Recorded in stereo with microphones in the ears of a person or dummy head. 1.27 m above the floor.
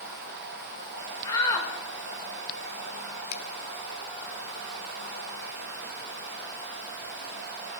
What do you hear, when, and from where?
1.2 s a shout: 20° left (ahead or behind), 5.5 m
3.3 s a finger snap: 70° left (ahead or behind), 3 m